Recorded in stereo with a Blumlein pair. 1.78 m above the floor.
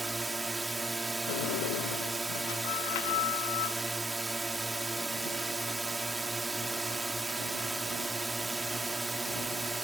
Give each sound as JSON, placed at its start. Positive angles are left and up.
{"t": 0.0, "sound": "a drone", "azimuth_deg": -5}
{"t": 1.3, "sound": "a sliding door", "azimuth_deg": 50}